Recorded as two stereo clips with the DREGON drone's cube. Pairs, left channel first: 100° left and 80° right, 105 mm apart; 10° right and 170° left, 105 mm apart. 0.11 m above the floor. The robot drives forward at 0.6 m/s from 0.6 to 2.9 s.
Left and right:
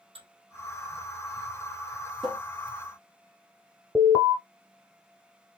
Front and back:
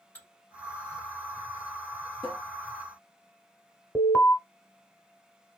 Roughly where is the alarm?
Left.